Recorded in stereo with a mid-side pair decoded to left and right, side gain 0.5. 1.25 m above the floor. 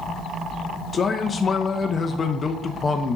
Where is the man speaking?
30° left, 0.8 m.